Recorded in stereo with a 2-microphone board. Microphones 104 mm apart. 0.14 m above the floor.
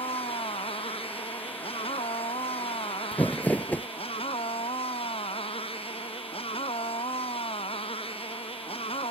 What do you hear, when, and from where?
0.0 s a motorcycle: 65° left (ahead or behind)
3.1 s crumpling: 15° left (ahead or behind)